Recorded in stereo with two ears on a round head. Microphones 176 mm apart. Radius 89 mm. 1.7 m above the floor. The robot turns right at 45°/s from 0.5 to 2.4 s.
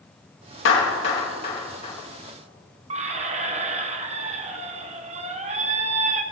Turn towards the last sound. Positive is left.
turn(degrees=-35)  # may be behind; listen again after turning